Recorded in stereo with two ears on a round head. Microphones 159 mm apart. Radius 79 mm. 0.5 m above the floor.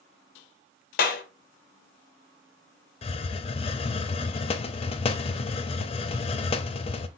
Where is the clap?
55° left (ahead or behind), 1.0 m.